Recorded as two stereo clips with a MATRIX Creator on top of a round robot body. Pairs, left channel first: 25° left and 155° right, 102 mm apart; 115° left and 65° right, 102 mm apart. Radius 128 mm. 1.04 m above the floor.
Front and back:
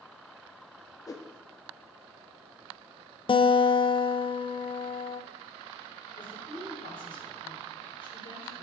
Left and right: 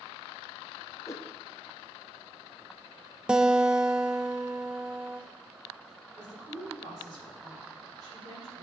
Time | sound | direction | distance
1.1 | a whoosh | 65° left | 0.8 m
3.3 | a guitar | 10° left | 0.6 m
6.2 | a woman speaking | 15° right | 4 m